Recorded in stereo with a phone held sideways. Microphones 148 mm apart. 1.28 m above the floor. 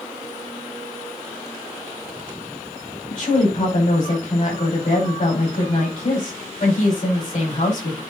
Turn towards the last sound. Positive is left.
turn(degrees=55)  # may be behind; listen again after turning